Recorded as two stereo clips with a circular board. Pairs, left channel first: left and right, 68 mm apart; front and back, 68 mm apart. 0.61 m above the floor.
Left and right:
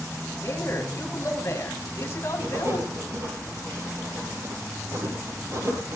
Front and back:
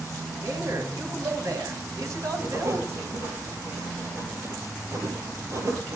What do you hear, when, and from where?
0.4 s a man speaking: 145° left, 5 m
2.4 s writing: 135° right, 5 m